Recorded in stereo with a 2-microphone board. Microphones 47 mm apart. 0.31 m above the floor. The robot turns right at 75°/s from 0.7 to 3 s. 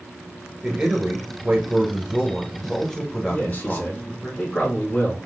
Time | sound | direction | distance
0.6 | a man speaking | 15° right (ahead or behind) | 1.0 m
3.3 | a man speaking | 30° left (ahead or behind) | 2 m